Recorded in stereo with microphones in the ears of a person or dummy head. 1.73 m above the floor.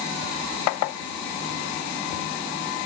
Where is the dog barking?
I don't hear a dog barking.